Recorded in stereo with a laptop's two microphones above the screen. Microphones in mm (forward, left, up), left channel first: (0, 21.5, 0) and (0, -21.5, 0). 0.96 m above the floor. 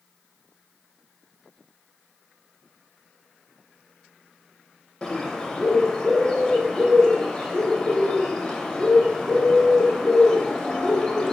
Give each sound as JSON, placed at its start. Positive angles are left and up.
{"t": 5.0, "sound": "a bird", "side_deg": 15, "distance_m": 0.8}